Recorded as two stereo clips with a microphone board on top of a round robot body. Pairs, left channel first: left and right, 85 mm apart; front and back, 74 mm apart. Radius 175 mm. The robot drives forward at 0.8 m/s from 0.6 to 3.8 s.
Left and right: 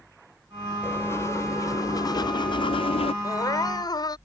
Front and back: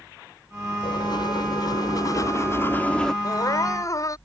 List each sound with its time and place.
0.8 s writing: 25° left; by 3.1 s 85° left
3.2 s crying: 40° left; by 4.2 s 45° left